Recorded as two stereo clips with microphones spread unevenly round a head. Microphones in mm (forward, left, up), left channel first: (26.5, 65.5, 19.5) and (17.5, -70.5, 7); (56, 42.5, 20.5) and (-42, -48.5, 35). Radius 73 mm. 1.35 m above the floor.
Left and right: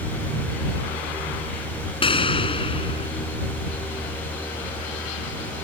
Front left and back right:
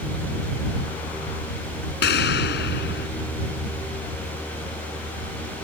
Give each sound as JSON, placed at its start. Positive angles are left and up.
{"t": 2.0, "sound": "an explosion", "azimuth_deg": 30}